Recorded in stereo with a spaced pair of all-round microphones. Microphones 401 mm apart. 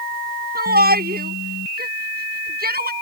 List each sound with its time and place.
0.6 s a shout: 20° right (ahead or behind)